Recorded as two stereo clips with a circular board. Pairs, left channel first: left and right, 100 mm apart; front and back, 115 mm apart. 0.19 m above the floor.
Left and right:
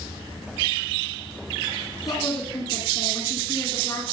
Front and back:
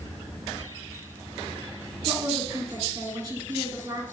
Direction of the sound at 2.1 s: 125° left.